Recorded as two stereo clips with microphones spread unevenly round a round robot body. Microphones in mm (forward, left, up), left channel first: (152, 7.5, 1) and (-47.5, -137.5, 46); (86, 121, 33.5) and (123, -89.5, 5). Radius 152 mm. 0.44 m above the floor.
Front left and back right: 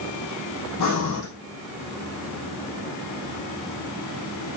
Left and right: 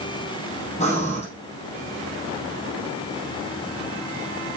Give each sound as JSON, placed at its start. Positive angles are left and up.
{"t": 0.8, "sound": "breathing", "azimuth_deg": 40, "distance_m": 3.5}